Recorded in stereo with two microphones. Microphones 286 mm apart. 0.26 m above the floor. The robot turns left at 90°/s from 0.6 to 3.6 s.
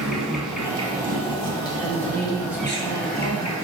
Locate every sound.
0.0 s an insect: straight ahead, 0.9 m; by 3.6 s 90° left, 0.9 m
1.8 s a woman speaking: 155° right, 1.3 m; by 3.5 s 50° left, 1.3 m